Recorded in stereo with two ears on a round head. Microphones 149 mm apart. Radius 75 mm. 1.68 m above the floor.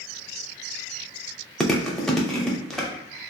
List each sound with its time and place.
1.6 s chewing: 5° left (ahead or behind), 0.5 m